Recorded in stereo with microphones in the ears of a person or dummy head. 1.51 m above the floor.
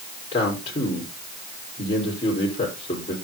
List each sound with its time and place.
0.3 s a man speaking: 30° left (ahead or behind), 4.5 m